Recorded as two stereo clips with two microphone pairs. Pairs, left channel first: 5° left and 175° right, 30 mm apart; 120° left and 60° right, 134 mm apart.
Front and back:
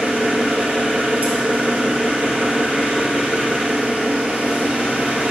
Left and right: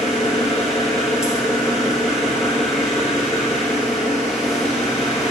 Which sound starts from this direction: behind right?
An engine running, at 0.0 s.